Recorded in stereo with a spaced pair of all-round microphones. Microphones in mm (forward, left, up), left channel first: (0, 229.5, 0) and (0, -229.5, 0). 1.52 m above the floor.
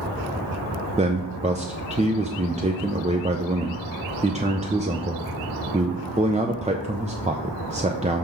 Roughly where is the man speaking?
Centre.